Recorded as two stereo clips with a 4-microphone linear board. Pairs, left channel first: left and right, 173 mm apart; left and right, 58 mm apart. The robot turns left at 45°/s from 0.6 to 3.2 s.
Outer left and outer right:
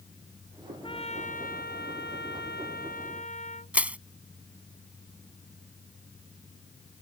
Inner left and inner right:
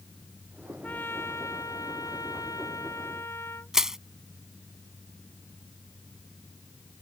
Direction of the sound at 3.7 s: 10° right (ahead or behind).